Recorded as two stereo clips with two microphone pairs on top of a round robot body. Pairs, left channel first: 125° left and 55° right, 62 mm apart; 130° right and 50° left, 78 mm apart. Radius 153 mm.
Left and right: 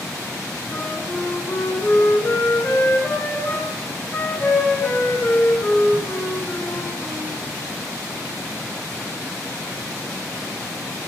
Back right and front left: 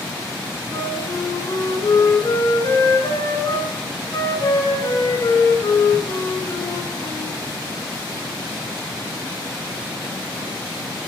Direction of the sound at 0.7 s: 175° right.